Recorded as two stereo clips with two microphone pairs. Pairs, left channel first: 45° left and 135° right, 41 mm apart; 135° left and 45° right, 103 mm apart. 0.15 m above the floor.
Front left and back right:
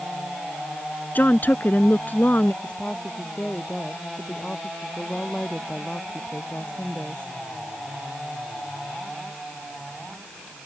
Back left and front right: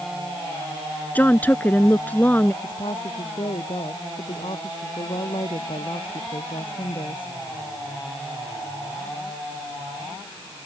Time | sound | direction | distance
1.1 | a woman speaking | 70° left | ?
2.6 | a woman speaking | 110° left | ?